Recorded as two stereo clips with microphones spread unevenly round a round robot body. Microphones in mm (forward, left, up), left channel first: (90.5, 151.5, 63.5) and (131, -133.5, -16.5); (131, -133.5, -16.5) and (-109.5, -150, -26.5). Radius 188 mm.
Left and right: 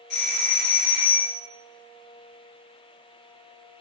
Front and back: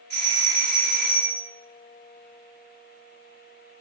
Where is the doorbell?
85° left, 1.4 m.